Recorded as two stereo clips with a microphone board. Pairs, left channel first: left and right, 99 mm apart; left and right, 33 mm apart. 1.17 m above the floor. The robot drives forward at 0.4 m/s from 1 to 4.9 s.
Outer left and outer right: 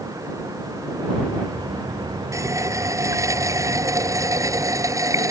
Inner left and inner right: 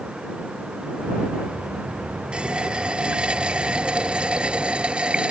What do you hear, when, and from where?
2.3 s a running tap: 30° right (ahead or behind)